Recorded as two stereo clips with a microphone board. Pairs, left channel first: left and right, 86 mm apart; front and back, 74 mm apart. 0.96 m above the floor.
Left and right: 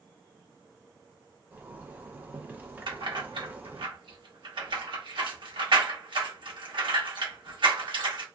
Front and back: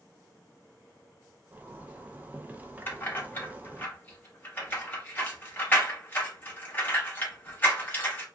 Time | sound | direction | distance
1.5 | a zipper | 135° right | 0.5 m
2.9 | keys jangling | 65° right | 0.9 m